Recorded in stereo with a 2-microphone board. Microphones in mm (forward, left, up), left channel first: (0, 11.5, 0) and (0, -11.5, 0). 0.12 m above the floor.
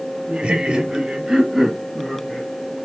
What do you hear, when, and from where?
0.3 s laughter: 45° right (ahead or behind), 2.0 m; by 2.5 s 20° left (ahead or behind), 1.8 m